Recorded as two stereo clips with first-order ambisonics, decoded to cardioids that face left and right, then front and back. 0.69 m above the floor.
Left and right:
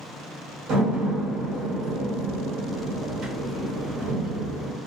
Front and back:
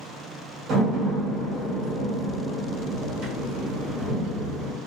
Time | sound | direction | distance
0.7 | a door slam | 135° right | 1.3 m